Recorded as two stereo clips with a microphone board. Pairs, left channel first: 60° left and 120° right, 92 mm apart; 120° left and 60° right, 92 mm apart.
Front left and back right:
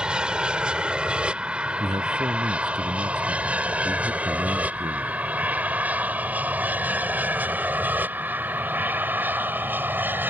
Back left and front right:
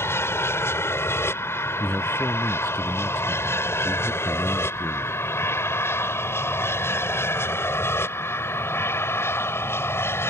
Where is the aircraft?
165° left; by 10.3 s 175° left.